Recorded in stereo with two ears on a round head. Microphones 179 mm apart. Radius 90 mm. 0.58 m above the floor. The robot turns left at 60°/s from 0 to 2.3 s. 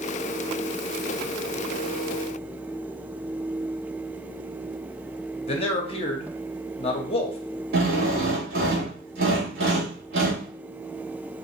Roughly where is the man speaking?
Left.